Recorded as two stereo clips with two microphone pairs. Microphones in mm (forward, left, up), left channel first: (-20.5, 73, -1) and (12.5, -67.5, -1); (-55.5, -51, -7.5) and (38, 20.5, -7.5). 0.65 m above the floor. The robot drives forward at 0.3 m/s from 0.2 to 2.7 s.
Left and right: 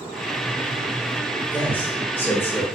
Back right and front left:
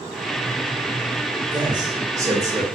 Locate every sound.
1.5 s a man speaking: 35° left, 1.2 m; by 2.6 s 60° left, 1.1 m